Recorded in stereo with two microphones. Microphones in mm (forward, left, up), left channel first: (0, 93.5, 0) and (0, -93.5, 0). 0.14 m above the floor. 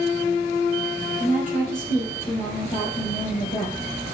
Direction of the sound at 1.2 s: 35° left (ahead or behind).